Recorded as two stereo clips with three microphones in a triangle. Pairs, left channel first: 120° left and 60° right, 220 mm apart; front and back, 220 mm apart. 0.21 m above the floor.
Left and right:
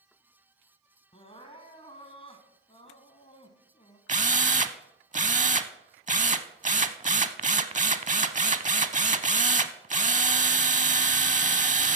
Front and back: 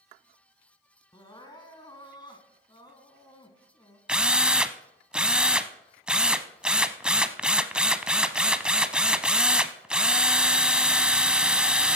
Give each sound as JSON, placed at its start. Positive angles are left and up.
{"t": 1.1, "sound": "crying", "azimuth_deg": 65, "distance_m": 1.3}
{"t": 4.1, "sound": "a drill", "azimuth_deg": -95, "distance_m": 0.5}